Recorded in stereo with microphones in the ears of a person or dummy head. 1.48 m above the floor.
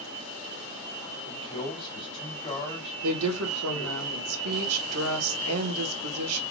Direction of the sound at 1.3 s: 30° left (ahead or behind).